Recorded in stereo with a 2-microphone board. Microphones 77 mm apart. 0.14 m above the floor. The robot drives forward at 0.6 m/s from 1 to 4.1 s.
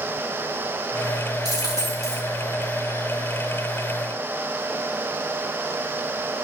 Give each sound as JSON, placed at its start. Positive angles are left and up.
{"t": 1.4, "sound": "a dropped coin", "side_deg": -55, "distance_m": 5.5}